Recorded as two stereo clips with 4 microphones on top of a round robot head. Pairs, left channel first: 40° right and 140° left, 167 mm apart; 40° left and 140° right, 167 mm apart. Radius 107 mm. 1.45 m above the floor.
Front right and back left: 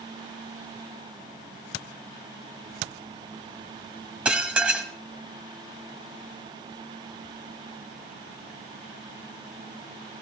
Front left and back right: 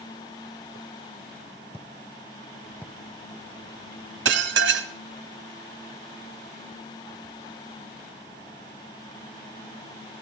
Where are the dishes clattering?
135° right, 1.3 m.